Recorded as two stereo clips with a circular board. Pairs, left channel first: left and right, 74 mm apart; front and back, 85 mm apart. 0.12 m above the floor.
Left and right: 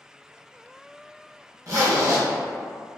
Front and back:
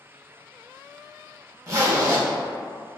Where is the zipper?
130° right, 1.2 m.